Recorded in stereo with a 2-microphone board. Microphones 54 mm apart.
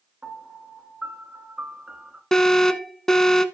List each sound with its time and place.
0.2 s a piano: 25° right (ahead or behind), 1.8 m
2.3 s an alarm: 5° left (ahead or behind), 0.8 m